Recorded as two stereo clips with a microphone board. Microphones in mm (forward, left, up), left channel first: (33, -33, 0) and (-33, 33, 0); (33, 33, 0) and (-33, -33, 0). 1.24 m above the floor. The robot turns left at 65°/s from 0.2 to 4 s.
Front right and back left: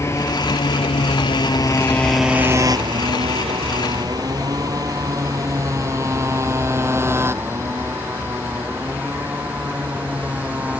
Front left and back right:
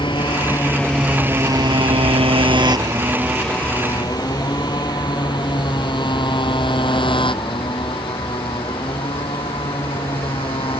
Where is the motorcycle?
15° left; by 10.8 s 60° left.